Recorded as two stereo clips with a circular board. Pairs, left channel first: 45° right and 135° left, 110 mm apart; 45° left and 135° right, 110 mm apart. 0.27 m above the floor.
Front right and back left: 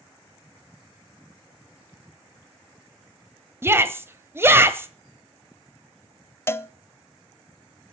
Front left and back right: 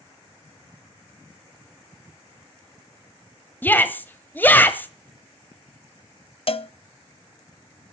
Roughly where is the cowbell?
Ahead.